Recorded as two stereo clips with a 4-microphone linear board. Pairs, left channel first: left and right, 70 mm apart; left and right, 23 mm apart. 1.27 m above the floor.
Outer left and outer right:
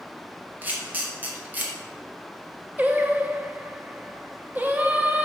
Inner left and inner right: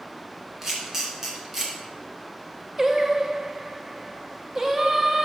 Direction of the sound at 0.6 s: 20° right (ahead or behind).